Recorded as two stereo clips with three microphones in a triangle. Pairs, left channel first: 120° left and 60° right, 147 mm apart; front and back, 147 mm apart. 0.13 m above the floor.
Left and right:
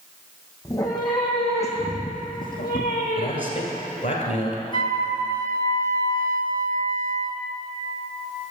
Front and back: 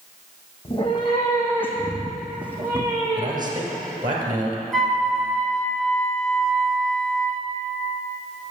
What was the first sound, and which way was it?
A cat meowing, 50° left.